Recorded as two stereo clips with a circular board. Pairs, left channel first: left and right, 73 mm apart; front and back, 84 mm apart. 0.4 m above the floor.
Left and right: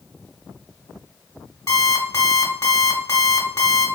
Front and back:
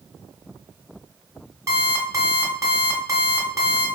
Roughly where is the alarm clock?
Behind left.